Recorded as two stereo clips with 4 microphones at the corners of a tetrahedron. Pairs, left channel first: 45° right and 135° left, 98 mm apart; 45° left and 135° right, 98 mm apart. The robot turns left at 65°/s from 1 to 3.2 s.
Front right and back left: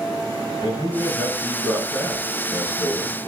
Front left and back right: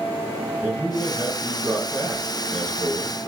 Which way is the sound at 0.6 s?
45° right.